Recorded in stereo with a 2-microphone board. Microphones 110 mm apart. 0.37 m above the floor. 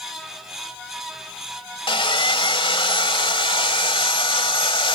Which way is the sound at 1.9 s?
55° left (ahead or behind).